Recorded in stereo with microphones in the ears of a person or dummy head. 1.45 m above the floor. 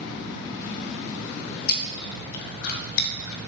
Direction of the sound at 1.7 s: 50° left (ahead or behind).